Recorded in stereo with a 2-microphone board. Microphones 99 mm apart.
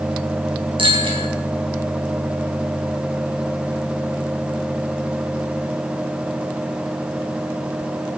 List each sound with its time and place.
0.8 s a bicycle bell: 75° right (ahead or behind), 3.5 m